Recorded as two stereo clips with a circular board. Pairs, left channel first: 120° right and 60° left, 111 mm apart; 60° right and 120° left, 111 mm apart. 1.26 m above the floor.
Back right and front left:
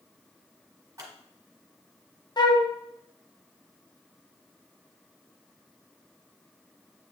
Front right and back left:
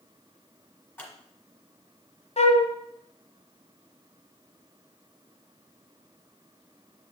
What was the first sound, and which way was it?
Scissors, 5° left.